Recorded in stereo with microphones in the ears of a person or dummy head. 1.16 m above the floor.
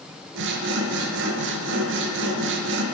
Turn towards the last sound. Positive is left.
turn(degrees=-60)  # may be behind; listen again after turning